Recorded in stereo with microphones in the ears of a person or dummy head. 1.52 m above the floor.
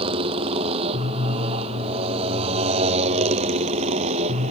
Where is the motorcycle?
30° right (ahead or behind); by 4.5 s 35° right (ahead or behind).